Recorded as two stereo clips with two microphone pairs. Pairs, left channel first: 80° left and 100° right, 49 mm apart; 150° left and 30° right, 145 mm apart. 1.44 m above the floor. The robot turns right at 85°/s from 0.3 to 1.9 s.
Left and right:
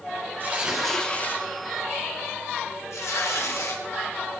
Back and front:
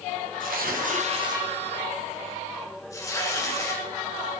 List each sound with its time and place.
0.4 s tearing paper: 50° right, 2.5 m; by 3.8 s 80° left, 2.5 m